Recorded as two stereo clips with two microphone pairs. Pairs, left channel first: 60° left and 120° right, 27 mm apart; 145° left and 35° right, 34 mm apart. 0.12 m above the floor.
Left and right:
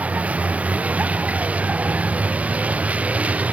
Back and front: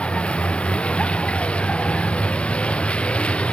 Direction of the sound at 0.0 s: 155° right.